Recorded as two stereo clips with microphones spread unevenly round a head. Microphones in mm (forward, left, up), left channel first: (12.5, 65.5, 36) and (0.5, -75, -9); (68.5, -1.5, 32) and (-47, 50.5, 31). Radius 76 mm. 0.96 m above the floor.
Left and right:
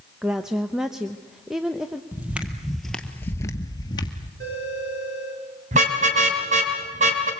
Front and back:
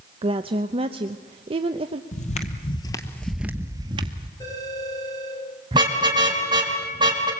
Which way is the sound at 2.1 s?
5° right.